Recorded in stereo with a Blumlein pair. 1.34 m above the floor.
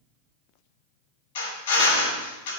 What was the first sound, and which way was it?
A drill, 60° left.